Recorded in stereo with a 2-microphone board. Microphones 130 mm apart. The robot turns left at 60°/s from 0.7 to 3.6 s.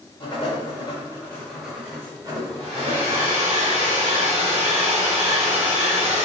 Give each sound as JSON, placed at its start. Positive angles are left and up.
{"t": 0.2, "sound": "writing", "side_deg": 40, "distance_m": 1.1}
{"t": 2.6, "sound": "a hair dryer", "azimuth_deg": -50, "distance_m": 1.6}